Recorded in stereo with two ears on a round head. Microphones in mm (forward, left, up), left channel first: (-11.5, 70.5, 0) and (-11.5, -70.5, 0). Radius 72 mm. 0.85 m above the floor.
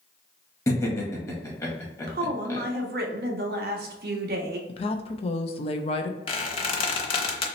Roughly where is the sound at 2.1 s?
Right.